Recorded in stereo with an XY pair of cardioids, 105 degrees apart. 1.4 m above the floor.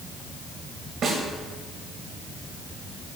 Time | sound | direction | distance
1.0 | a snare drum | 65° right | 1.6 m